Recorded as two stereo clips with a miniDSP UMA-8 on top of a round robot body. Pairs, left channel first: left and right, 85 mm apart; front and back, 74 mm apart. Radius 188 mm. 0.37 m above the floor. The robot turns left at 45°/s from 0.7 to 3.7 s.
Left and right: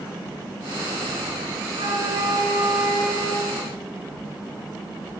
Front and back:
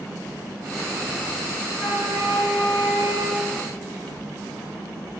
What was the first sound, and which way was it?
A flute, 90° right.